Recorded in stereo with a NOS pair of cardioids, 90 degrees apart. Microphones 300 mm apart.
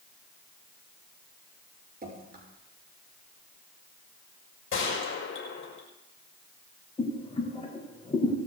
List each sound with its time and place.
2.0 s dripping: 30° right, 5.5 m
4.7 s a gunshot: 45° left, 5.5 m
7.0 s boiling: 20° left, 4.5 m